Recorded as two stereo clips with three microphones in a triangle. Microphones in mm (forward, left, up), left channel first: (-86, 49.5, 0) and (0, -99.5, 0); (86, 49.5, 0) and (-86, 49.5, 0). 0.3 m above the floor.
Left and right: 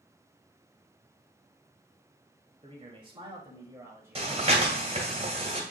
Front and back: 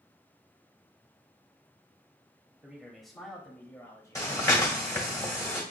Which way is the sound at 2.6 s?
95° right.